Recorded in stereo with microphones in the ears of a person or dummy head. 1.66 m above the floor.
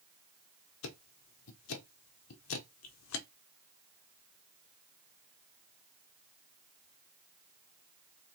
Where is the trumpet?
I don't hear a trumpet.